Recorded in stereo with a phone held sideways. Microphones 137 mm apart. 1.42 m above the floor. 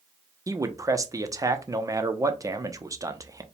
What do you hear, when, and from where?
0.5 s a man speaking: 25° right (ahead or behind), 0.5 m